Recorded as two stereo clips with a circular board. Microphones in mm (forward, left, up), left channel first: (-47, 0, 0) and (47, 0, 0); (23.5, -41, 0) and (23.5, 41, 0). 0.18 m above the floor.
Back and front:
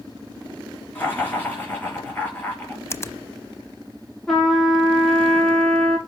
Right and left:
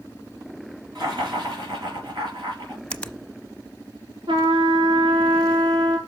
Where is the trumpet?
95° left, 2.5 m.